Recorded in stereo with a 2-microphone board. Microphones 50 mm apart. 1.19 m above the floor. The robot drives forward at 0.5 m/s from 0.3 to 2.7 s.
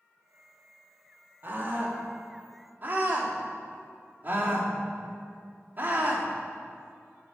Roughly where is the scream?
Right.